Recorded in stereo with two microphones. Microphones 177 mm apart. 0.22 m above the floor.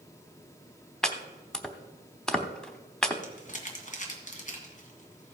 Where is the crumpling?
45° left (ahead or behind), 1.9 m.